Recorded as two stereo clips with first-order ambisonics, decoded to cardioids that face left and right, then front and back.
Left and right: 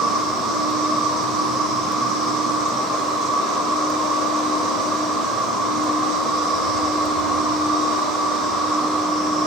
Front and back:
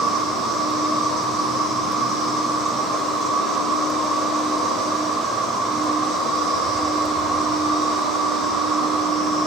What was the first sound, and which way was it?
An insect, 120° right.